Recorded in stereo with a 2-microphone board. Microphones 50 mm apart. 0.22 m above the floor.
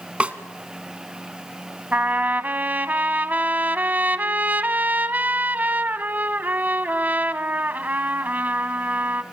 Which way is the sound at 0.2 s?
25° right (ahead or behind).